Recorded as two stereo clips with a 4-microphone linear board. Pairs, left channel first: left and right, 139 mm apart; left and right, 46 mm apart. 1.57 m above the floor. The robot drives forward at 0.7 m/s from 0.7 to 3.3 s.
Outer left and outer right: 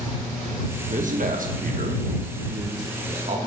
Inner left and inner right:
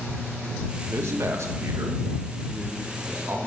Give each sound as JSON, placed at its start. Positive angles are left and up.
{"t": 0.8, "sound": "a man speaking", "side_deg": -60, "distance_m": 1.5}